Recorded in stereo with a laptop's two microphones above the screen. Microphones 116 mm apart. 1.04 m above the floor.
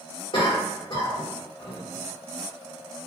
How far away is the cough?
About 1.3 m.